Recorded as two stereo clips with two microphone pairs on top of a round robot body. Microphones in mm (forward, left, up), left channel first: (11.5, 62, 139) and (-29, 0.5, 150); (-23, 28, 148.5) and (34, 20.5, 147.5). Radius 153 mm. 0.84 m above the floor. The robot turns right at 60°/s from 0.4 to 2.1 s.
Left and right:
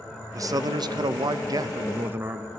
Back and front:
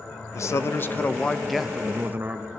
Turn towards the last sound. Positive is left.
turn(degrees=-60)